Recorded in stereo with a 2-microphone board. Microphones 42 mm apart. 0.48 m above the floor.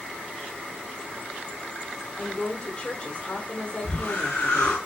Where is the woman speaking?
30° left (ahead or behind), 0.9 m.